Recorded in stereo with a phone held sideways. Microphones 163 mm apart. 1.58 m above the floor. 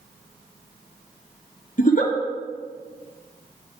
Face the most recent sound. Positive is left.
turn(degrees=55)  # may be behind; listen again after turning